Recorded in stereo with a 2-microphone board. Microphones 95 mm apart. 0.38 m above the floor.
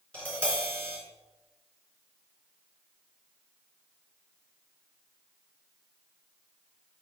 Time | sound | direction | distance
0.1 | tapping | 15° left (ahead or behind) | 3.5 m